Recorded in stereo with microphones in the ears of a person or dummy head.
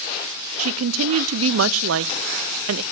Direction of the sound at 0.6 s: 75° right (ahead or behind).